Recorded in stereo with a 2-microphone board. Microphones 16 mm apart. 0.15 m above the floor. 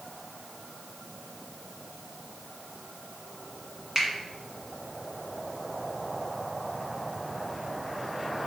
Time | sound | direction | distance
4.0 | a finger snap | 20° right (ahead or behind) | 1.6 m